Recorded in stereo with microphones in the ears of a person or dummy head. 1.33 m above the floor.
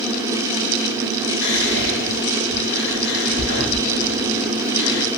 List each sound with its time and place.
1.4 s whispering: 60° left (ahead or behind), 1.4 m